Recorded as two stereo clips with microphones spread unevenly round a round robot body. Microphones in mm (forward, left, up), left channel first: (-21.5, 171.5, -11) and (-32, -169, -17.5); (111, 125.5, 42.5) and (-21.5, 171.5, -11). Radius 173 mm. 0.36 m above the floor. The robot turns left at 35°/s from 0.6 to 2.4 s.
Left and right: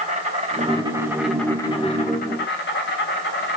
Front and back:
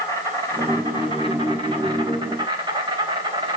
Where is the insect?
155° right, 3 m; by 3.6 s 140° left, 3 m.